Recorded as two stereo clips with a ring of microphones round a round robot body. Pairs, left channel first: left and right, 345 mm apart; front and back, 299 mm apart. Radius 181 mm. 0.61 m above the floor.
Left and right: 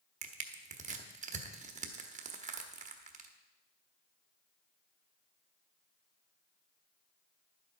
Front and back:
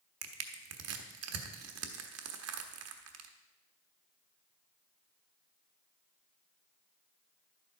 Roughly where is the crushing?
Behind right.